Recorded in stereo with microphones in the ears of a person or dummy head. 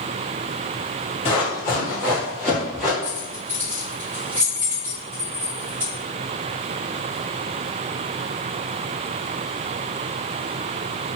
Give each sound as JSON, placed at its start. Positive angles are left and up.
{"t": 1.2, "sound": "running footsteps", "side_deg": 35, "distance_m": 1.8}
{"t": 3.0, "sound": "keys jangling", "side_deg": -15, "distance_m": 0.9}